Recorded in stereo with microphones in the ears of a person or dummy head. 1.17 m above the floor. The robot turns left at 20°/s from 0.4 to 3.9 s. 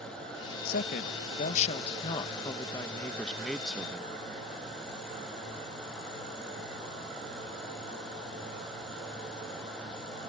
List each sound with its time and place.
0.7 s a woman speaking: 55° left; by 4.1 s 10° right